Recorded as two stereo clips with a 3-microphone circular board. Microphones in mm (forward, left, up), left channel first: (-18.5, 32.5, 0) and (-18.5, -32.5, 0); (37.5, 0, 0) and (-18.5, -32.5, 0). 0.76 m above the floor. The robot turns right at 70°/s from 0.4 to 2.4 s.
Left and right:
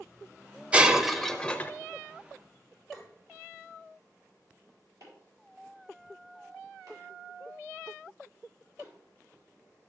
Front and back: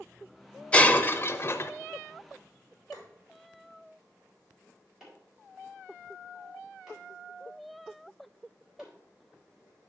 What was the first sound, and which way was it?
Breaking glass, 30° right.